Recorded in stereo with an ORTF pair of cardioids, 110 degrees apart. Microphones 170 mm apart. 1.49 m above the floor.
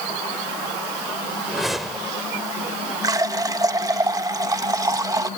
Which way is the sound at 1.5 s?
Straight ahead.